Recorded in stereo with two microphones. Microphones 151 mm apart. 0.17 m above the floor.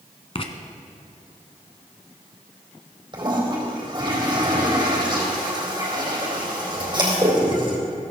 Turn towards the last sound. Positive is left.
turn(degrees=-30)  # may be behind; listen again after turning